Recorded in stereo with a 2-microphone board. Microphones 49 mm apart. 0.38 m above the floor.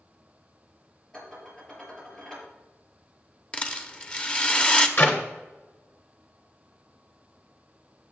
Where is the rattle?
25° left (ahead or behind), 0.9 m.